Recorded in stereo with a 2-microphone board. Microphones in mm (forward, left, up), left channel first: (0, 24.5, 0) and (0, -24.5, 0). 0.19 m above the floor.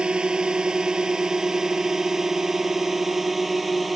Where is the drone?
20° right (ahead or behind); by 4.0 s centre (ahead or behind).